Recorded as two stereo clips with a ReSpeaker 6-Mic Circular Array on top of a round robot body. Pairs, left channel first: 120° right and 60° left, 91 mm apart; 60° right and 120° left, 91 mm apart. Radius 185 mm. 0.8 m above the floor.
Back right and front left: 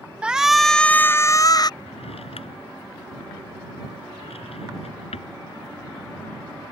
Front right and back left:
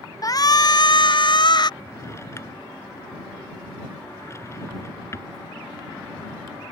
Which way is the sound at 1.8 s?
120° right.